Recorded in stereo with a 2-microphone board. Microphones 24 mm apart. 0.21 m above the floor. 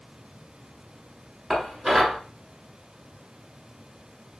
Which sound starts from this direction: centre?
Dishes clattering, at 1.5 s.